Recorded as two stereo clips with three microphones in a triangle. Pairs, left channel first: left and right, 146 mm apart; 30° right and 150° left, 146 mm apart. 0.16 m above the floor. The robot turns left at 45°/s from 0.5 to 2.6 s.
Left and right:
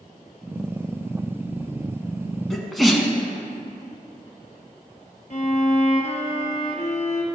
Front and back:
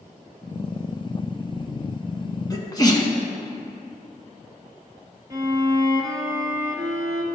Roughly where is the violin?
Left.